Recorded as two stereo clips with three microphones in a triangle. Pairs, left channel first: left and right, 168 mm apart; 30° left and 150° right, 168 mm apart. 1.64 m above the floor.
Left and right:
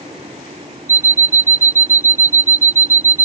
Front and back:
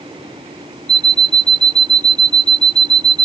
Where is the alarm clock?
145° right.